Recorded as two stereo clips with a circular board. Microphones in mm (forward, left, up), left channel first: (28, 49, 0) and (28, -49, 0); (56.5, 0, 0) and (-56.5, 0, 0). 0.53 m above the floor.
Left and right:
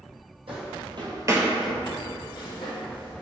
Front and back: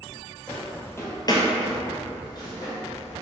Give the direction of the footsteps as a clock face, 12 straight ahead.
3 o'clock.